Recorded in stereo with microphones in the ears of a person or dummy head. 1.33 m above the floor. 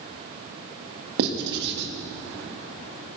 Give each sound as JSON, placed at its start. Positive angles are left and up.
{"t": 1.2, "sound": "writing", "side_deg": -60, "distance_m": 1.6}